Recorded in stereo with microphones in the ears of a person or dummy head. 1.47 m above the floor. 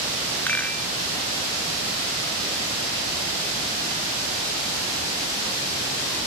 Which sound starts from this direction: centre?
A rattle, at 0.5 s.